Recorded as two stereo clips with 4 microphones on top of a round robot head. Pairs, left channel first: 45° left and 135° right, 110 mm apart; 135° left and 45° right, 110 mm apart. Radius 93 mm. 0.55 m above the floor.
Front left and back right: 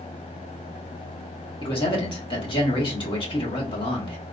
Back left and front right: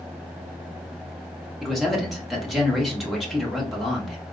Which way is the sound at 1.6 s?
45° left.